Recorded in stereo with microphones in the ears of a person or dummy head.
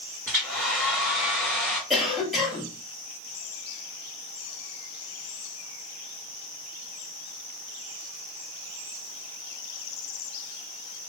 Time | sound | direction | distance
0.3 | a hair dryer | centre (ahead or behind) | 1.7 m
1.9 | a cough | centre (ahead or behind) | 1.3 m